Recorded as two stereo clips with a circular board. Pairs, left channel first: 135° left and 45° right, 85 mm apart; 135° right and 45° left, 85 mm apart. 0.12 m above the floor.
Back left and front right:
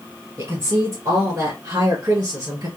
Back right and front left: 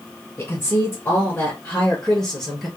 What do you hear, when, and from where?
0.4 s a woman speaking: 90° right, 2.5 m; by 2.7 s 50° right, 2 m